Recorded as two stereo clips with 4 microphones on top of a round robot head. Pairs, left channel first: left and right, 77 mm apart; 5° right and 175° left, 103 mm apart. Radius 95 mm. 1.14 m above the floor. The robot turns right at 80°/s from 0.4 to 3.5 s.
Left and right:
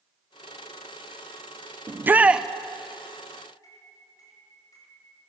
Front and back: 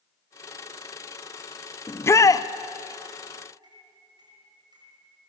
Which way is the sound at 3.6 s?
130° left.